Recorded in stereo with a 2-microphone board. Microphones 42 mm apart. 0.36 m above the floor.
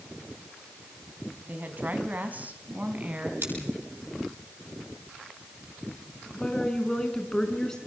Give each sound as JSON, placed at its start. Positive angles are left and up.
{"t": 1.5, "sound": "a woman speaking", "side_deg": -45, "distance_m": 3.5}
{"t": 3.4, "sound": "scissors", "side_deg": -65, "distance_m": 9.5}
{"t": 6.3, "sound": "a woman speaking", "side_deg": 15, "distance_m": 4.5}